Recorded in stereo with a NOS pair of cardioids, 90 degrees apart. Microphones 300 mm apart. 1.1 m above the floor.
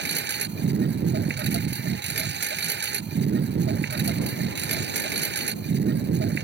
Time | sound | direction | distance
0.0 | a lawn mower | 40° right | ?